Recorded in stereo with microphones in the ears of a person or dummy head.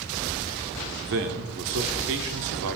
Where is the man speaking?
55° right (ahead or behind), 0.7 m.